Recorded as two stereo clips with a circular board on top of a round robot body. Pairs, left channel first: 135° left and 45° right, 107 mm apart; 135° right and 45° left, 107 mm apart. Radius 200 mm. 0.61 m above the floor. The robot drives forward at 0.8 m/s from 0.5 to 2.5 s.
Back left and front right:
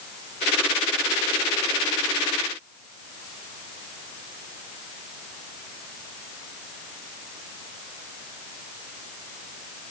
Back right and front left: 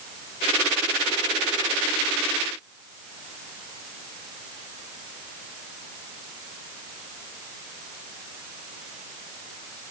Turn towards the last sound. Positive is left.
No sound to turn to.